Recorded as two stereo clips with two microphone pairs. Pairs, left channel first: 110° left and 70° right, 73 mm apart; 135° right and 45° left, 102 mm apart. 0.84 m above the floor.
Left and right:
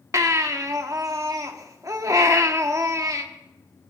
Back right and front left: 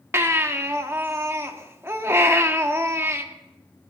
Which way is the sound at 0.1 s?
25° right.